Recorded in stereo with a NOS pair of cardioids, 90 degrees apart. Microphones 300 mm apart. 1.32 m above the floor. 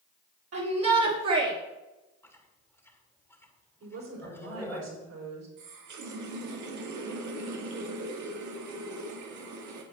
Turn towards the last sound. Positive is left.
turn(degrees=-70)